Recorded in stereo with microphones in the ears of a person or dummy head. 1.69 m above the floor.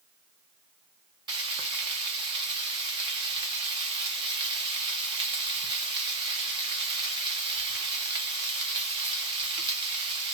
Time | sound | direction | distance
1.3 | frying | 30° right (ahead or behind) | 1.0 m